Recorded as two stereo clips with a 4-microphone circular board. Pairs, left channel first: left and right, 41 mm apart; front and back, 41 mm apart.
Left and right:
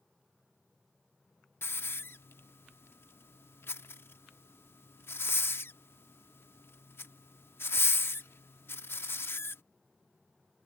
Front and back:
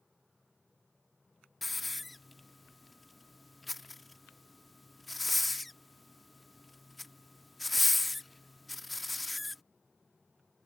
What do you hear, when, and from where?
1.6 s a hiss: 90° left